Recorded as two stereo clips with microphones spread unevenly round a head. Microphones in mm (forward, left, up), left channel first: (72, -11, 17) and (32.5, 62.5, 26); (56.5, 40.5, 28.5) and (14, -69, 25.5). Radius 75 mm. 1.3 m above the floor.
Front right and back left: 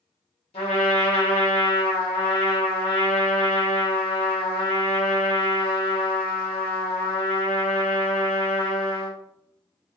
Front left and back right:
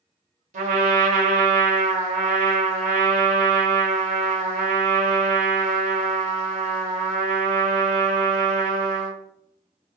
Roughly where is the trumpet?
Right.